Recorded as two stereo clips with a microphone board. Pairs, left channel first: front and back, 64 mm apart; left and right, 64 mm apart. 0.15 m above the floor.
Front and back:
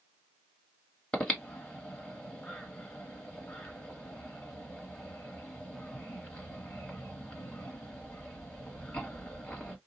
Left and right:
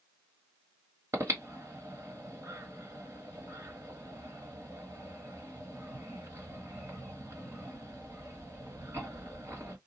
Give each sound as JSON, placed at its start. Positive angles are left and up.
{"t": 1.1, "sound": "breathing", "azimuth_deg": -70, "distance_m": 1.2}